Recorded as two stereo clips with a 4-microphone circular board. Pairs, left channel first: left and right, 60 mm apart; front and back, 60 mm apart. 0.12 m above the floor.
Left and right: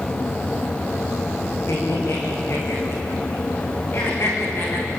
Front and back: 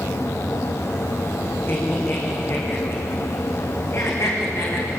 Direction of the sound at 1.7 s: 50° left.